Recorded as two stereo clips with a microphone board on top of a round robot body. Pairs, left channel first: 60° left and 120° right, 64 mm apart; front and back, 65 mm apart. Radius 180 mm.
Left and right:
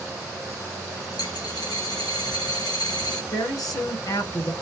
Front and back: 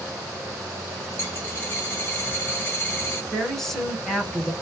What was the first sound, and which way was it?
A dropped coin, 60° left.